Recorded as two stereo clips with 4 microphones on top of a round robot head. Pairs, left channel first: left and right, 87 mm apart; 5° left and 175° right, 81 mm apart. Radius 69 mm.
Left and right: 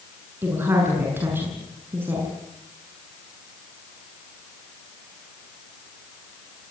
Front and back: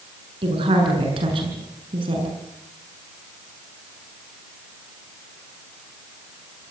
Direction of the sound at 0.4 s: 160° right.